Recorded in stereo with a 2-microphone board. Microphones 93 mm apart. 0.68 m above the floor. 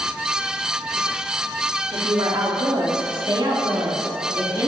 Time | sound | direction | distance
1.9 | a woman speaking | 50° right (ahead or behind) | 1.7 m